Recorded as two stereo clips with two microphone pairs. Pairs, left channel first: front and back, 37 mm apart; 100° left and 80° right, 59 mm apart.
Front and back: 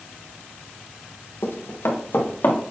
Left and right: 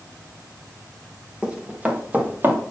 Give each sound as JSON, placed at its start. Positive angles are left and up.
{"t": 1.4, "sound": "running footsteps", "azimuth_deg": -5, "distance_m": 2.5}